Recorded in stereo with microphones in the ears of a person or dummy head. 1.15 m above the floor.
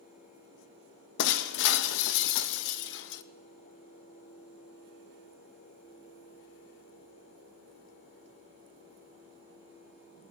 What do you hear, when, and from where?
1.2 s breaking glass: 75° left (ahead or behind), 0.6 m